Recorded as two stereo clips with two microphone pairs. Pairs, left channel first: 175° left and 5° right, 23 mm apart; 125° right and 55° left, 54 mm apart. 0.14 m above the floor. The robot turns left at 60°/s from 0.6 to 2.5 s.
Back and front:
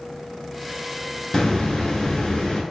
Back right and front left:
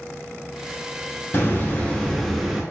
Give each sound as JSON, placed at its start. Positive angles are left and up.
{"t": 1.3, "sound": "a hiss", "azimuth_deg": -155, "distance_m": 0.9}